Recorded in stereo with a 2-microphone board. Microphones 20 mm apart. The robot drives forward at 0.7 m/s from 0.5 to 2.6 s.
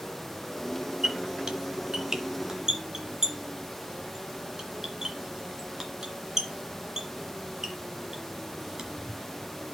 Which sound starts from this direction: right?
A squeak, at 1.0 s.